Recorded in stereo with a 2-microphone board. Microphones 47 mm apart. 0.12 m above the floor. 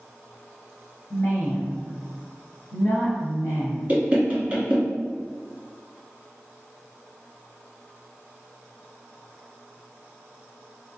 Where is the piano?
I don't hear a piano.